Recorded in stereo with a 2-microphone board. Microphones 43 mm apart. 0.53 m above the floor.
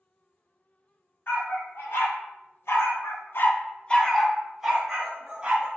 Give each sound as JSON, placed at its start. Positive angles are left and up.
{"t": 1.3, "sound": "a dog barking", "side_deg": 65, "distance_m": 1.4}